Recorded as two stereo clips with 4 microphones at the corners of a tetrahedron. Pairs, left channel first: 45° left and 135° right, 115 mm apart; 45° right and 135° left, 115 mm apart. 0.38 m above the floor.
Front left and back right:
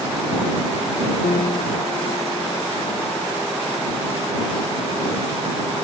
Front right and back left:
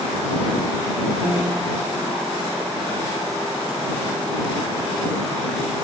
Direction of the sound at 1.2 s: 55° left.